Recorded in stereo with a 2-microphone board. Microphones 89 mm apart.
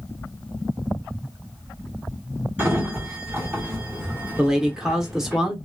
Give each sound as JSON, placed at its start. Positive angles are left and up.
{"t": 2.6, "sound": "a sliding door", "side_deg": -20, "distance_m": 1.4}
{"t": 4.4, "sound": "a man speaking", "side_deg": -5, "distance_m": 0.8}